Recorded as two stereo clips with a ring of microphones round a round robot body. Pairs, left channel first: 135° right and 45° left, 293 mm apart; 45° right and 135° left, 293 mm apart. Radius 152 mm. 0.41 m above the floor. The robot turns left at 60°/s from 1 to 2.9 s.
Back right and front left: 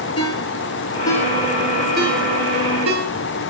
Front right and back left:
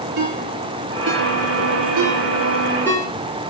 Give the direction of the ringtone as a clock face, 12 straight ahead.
7 o'clock.